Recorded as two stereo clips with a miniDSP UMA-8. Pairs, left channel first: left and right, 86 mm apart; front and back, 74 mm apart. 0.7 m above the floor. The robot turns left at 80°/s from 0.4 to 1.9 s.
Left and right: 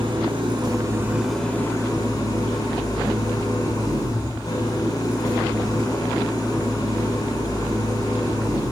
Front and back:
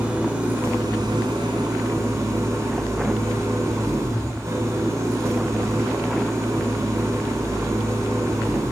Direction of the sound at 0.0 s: 105° right.